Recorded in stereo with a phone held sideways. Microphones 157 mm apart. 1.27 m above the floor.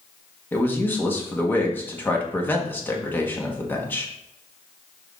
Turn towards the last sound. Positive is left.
turn(degrees=15)  # may be behind; listen again after turning